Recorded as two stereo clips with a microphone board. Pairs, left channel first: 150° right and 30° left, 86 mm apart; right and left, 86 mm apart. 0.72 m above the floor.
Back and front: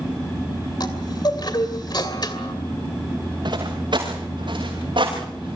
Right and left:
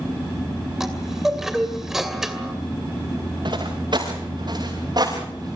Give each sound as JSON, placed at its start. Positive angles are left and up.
{"t": 0.8, "sound": "a chime", "azimuth_deg": 175, "distance_m": 2.5}
{"t": 3.5, "sound": "footsteps", "azimuth_deg": 60, "distance_m": 6.0}